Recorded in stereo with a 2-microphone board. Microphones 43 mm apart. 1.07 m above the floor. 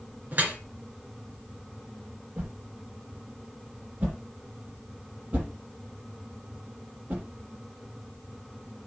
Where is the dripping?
40° right (ahead or behind), 2.5 m.